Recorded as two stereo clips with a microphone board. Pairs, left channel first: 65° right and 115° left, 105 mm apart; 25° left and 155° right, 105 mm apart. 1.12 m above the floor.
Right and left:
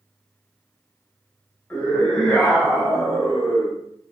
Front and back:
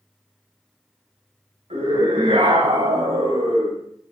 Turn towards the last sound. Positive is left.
turn(degrees=-160)